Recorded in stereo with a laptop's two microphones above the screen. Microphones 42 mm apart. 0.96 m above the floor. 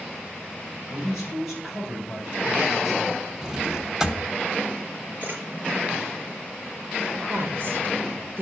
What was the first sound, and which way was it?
A man speaking, centre (ahead or behind).